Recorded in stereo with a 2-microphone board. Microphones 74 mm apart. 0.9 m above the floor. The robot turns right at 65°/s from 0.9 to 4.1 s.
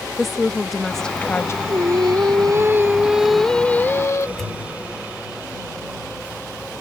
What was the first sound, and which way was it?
A woman speaking, straight ahead.